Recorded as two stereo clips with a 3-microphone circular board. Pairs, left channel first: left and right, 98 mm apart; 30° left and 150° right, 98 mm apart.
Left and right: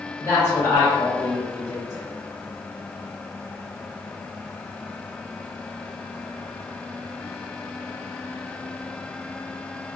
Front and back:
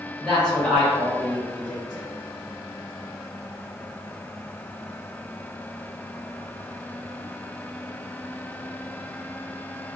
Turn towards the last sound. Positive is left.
turn(degrees=100)